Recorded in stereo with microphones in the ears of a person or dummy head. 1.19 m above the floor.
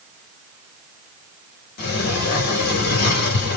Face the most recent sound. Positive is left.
turn(degrees=55)  # may be behind; listen again after turning